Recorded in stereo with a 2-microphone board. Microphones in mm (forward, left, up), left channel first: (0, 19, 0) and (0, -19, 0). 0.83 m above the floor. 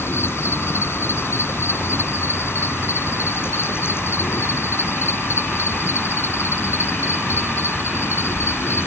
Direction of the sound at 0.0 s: 85° left.